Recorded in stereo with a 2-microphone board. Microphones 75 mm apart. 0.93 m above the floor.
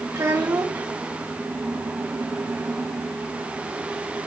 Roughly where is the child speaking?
Right.